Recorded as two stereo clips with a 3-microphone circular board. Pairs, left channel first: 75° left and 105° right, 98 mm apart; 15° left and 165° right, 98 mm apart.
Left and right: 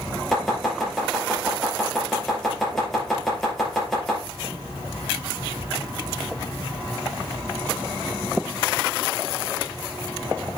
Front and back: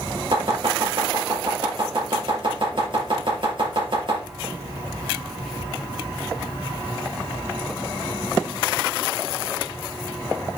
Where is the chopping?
160° left, 4.5 m.